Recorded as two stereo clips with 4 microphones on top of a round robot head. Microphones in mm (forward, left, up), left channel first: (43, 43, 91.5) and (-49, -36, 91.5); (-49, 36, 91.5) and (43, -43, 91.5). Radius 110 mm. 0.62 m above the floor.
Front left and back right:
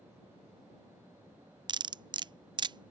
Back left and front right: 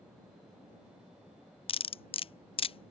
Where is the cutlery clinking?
175° left.